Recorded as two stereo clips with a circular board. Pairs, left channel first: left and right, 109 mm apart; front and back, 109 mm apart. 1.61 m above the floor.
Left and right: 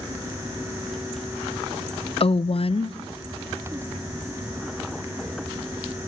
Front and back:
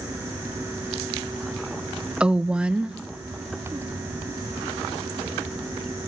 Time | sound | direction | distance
2.2 | a woman speaking | 100° left | 0.5 m